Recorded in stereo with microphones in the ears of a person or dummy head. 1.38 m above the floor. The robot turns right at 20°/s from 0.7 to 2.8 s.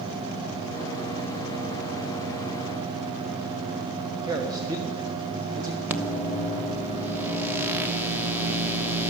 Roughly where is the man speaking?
Right.